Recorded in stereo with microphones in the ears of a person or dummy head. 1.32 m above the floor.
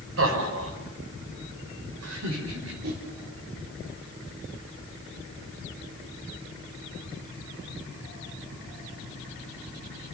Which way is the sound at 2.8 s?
50° right (ahead or behind).